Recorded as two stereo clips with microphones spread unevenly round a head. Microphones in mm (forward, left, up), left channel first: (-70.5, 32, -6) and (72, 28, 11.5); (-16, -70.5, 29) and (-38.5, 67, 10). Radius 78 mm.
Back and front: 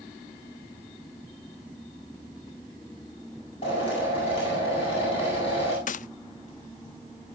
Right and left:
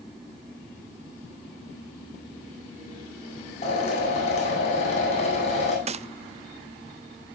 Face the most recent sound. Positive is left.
turn(degrees=145)